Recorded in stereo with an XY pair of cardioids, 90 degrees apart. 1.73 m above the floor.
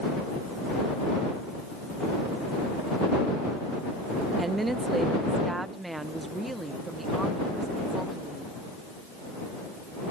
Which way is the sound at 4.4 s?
30° right.